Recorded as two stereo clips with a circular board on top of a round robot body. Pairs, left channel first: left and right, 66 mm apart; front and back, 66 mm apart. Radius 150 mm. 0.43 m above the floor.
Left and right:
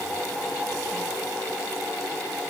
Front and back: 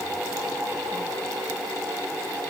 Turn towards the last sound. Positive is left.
No sound to turn to.